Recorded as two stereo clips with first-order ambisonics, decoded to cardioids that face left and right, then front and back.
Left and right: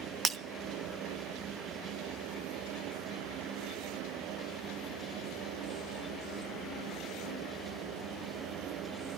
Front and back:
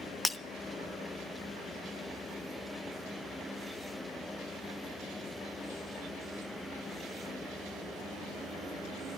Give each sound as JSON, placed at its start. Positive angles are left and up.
{"t": 0.2, "sound": "breaking glass", "azimuth_deg": -70, "distance_m": 0.5}